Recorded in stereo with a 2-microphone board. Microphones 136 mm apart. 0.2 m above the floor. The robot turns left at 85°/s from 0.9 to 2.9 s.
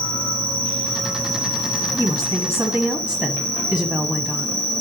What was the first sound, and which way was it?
An insect, 35° left.